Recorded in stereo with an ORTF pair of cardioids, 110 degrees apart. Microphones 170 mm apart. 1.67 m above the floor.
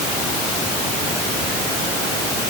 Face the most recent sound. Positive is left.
No sound to turn to.